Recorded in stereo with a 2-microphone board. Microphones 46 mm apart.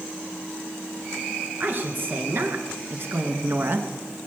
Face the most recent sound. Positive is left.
turn(degrees=-55)  # may be behind; listen again after turning